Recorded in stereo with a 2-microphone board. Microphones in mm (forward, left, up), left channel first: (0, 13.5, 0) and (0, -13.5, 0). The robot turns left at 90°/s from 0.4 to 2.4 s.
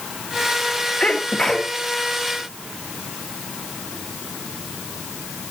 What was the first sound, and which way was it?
A sneeze, 75° left.